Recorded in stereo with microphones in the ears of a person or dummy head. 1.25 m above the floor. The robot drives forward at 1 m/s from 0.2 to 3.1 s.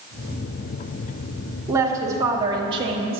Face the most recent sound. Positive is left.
turn(degrees=-30)  # may be behind; listen again after turning